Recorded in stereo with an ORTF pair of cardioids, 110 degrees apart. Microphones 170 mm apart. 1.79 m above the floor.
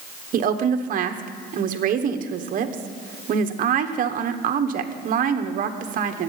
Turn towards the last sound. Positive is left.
turn(degrees=-55)